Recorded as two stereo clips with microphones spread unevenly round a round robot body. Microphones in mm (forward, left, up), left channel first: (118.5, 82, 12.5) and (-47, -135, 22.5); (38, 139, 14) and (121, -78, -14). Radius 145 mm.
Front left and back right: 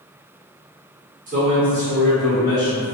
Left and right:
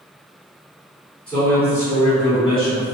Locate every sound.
1.3 s a man speaking: 155° right, 1.1 m; by 2.9 s 60° left, 1.1 m